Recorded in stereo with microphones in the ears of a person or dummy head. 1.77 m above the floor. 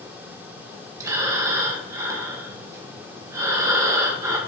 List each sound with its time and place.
1.0 s breathing: 20° right (ahead or behind), 1.8 m